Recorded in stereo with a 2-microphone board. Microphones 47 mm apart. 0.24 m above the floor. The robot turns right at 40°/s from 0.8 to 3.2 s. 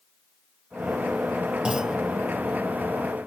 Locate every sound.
1.6 s a clunk: 20° right (ahead or behind); by 2.0 s 5° right (ahead or behind)